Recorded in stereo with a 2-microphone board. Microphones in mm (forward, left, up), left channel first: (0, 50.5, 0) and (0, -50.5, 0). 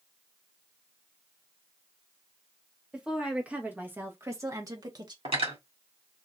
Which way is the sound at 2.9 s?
10° right (ahead or behind).